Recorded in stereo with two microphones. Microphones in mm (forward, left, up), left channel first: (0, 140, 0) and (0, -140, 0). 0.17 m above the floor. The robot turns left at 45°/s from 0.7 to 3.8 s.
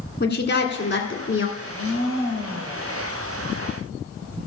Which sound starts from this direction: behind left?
A woman speaking, at 0.2 s.